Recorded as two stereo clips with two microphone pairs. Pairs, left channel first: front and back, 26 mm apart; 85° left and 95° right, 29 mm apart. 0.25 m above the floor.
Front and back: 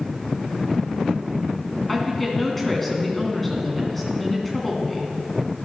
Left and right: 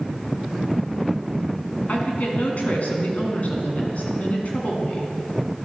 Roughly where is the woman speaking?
Left.